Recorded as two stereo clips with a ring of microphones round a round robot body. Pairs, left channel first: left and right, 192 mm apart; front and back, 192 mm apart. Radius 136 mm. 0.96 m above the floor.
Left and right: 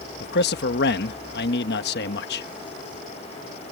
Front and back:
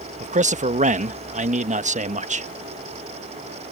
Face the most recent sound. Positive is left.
turn(degrees=130)